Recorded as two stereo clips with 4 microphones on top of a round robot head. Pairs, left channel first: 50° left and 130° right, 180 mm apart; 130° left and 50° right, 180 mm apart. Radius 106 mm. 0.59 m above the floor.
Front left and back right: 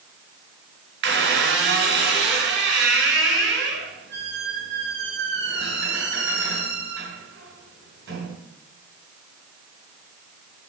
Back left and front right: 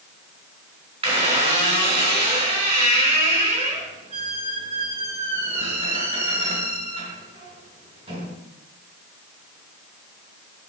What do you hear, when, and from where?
1.0 s a squeak: 110° right, 3.5 m